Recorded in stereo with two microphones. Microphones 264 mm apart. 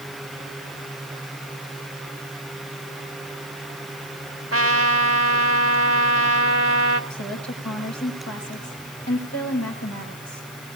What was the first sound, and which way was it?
A trumpet, 55° right (ahead or behind).